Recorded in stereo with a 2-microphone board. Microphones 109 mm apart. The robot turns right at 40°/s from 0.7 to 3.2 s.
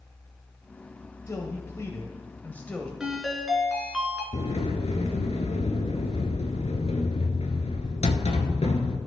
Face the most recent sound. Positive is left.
turn(degrees=80)